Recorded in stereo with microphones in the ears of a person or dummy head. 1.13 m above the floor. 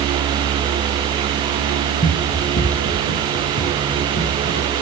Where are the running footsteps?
25° left (ahead or behind), 1.8 m; by 4.7 s 75° left (ahead or behind), 4.5 m.